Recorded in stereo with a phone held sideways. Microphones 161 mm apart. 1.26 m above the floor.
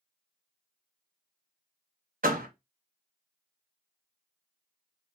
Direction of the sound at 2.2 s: 60° right (ahead or behind).